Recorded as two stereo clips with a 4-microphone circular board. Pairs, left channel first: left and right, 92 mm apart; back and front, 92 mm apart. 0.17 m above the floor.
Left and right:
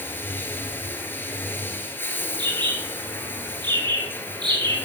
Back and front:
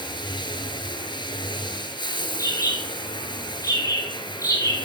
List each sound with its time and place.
0.0 s running water: 155° left, 1.5 m
2.4 s a bird: 125° right, 3 m